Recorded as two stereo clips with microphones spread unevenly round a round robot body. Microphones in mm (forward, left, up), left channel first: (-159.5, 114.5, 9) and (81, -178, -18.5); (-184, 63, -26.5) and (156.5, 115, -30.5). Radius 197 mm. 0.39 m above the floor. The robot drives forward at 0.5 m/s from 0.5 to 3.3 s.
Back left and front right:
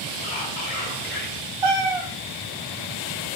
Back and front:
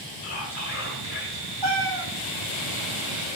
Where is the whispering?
165° right, 1.4 m; by 1.5 s 170° right, 1.7 m.